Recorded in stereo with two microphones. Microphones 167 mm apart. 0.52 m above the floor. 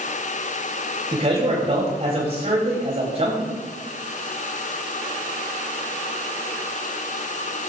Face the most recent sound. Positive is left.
turn(degrees=-40)  # may be behind; listen again after turning